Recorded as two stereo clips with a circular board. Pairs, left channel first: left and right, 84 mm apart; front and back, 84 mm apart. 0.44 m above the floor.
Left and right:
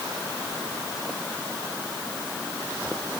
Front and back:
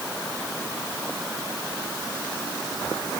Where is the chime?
I don't hear a chime.